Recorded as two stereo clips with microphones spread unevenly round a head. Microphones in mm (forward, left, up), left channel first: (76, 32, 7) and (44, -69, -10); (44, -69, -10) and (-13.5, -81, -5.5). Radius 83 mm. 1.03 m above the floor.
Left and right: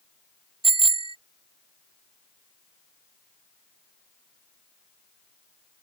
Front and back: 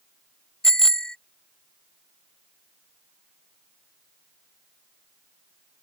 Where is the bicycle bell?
70° right.